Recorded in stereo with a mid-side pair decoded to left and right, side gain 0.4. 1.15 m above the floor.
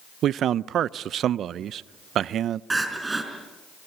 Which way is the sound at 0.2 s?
70° right.